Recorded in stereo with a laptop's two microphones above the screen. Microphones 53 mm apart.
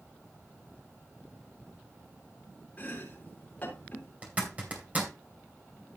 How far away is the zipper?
About 2.5 m.